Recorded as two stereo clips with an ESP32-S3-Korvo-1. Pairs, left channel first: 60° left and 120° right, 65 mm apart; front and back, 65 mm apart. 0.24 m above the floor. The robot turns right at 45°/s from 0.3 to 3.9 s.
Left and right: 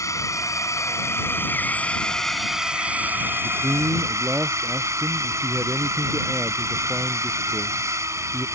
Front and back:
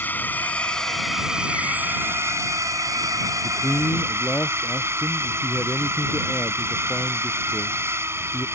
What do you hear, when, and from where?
0.0 s a drone: 55° left; by 8.6 s 145° right
3.4 s a man speaking: 80° right; by 8.5 s 60° right